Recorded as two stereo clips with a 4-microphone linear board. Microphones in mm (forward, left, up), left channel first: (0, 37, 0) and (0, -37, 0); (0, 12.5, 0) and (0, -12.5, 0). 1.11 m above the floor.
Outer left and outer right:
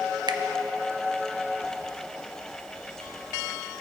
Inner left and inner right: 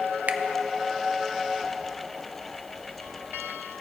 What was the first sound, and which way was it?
A finger snap, 80° right.